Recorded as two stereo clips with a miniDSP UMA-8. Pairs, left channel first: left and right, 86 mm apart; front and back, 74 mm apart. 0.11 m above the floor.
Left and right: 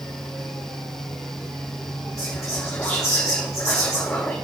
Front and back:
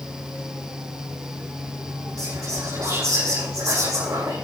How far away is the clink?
No clink in this recording.